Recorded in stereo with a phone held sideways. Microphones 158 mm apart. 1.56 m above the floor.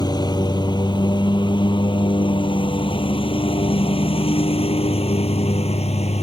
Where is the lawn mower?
25° left (ahead or behind); by 6.2 s 45° left (ahead or behind).